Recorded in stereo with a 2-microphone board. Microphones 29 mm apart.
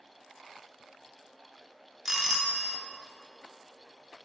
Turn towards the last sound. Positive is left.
turn(degrees=-15)  # may be behind; listen again after turning